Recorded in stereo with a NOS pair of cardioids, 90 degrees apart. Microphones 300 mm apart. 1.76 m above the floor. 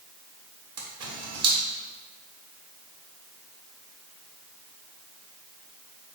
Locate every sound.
0.8 s a camera shutter: 55° right, 1.6 m